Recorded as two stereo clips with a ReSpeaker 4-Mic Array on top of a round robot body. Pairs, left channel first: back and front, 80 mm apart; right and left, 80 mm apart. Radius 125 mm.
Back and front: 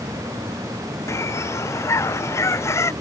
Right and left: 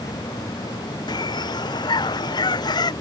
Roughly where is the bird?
Behind right.